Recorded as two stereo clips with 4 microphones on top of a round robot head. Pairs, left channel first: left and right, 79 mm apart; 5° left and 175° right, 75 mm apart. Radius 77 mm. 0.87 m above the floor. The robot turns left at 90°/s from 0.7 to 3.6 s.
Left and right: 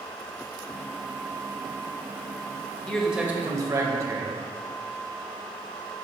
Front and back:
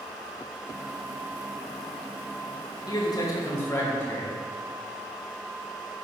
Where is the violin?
I don't hear a violin.